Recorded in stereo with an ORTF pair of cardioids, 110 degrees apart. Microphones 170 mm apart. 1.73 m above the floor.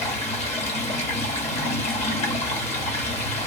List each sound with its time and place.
0.0 s running water: 40° left, 0.9 m